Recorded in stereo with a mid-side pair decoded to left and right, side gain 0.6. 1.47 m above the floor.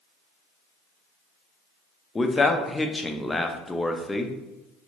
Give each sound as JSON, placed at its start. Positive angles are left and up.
{"t": 2.1, "sound": "a man speaking", "azimuth_deg": 15, "distance_m": 0.5}